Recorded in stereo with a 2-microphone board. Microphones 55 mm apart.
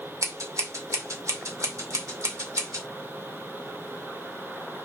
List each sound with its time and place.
0.2 s scissors: 70° right (ahead or behind), 2 m